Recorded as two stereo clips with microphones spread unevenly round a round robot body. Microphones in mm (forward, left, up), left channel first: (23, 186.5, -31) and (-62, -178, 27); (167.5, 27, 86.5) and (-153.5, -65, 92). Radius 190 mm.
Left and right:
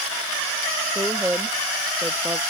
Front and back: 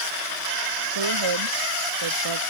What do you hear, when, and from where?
0.9 s a woman speaking: 170° left